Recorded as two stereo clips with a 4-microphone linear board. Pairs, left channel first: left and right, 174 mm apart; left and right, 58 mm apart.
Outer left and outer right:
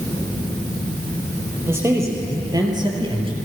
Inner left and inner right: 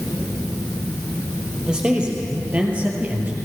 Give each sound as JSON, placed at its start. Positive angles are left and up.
{"t": 1.7, "sound": "a man speaking", "side_deg": -15, "distance_m": 4.5}